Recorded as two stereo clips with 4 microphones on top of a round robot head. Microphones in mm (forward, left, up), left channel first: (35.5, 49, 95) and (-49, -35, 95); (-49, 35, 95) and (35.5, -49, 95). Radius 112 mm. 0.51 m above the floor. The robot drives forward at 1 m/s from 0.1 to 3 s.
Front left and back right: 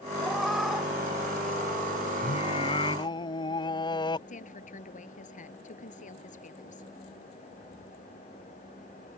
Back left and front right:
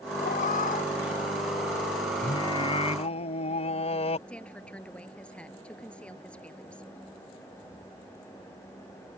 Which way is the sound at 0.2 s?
135° left.